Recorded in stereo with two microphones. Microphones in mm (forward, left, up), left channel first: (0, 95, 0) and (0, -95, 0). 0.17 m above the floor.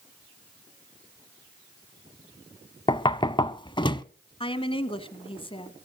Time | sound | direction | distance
2.9 | knocking | 25° left (ahead or behind) | 0.7 m
4.4 | a woman speaking | 30° left (ahead or behind) | 1.2 m